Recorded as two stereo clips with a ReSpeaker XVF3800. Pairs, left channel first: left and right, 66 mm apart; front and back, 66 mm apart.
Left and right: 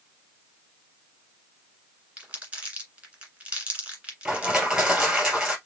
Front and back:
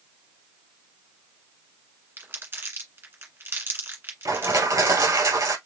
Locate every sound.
2.2 s crumpling: 155° right, 2.0 m
4.2 s crushing: 170° right, 1.9 m